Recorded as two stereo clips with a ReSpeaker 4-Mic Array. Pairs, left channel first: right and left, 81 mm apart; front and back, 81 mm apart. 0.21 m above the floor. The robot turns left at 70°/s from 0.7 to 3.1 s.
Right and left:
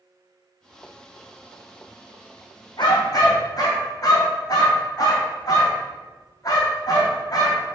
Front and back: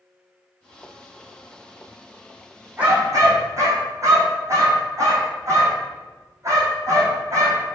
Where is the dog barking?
105° right, 3.5 m; by 7.7 s 130° right, 3.5 m.